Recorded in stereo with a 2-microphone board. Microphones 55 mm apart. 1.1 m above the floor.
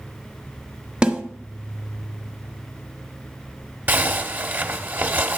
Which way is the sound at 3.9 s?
35° right (ahead or behind).